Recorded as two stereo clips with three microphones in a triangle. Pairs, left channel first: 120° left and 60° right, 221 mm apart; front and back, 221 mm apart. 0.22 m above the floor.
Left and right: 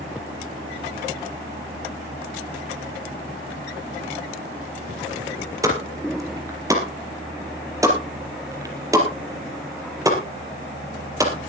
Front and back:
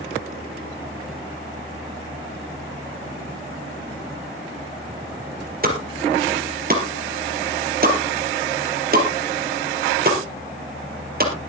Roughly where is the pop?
Behind right.